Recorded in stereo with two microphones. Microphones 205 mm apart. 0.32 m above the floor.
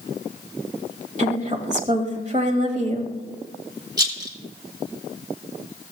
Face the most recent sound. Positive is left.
turn(degrees=-20)  # may be behind; listen again after turning